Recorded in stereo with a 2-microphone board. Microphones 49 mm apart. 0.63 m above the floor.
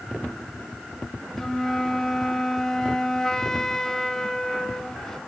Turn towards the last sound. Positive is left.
turn(degrees=10)  # may be behind; listen again after turning